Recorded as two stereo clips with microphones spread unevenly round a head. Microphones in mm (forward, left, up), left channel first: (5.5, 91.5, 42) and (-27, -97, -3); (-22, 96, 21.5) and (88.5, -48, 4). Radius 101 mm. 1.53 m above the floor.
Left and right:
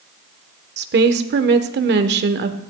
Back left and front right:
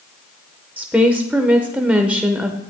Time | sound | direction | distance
0.8 | a woman speaking | 135° right | 1.0 m